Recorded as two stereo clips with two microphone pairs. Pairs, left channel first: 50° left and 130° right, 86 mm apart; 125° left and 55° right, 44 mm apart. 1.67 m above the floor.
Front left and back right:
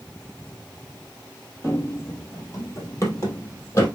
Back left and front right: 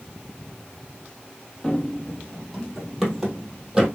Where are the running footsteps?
65° left, 1.9 m; by 3.9 s 15° left, 2.5 m.